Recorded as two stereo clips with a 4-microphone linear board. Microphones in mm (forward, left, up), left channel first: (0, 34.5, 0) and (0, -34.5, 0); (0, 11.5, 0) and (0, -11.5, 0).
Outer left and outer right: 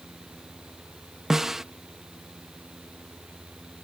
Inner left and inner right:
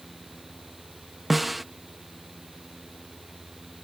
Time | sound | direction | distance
1.3 | a snare drum | 5° right (ahead or behind) | ?